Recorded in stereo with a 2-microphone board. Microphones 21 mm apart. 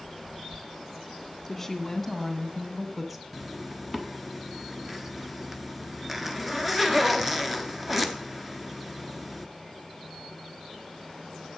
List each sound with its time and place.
1.5 s a woman speaking: 10° left (ahead or behind), 2 m; by 3.2 s 10° right (ahead or behind), 1.6 m
3.3 s a zipper: 10° right (ahead or behind), 0.8 m